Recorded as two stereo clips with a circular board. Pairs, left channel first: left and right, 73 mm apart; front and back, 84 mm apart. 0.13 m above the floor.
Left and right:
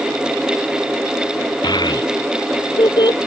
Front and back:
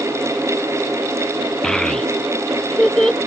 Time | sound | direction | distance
1.6 | a child speaking | 85° left | ?